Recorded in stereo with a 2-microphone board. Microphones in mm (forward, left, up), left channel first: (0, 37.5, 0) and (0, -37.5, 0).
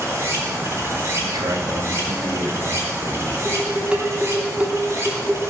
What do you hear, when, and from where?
0.0 s running water: 40° right (ahead or behind), 3.5 m
1.2 s a man speaking: 75° right (ahead or behind), 2.5 m
3.5 s dishes clattering: 20° right (ahead or behind), 1.9 m